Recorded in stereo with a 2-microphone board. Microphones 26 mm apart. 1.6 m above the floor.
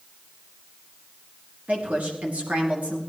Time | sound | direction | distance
1.7 | a woman speaking | 65° right (ahead or behind) | 2.5 m